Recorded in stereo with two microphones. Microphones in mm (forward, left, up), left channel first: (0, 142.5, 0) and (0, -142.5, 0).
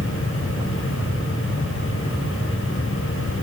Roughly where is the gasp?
I don't hear a gasp.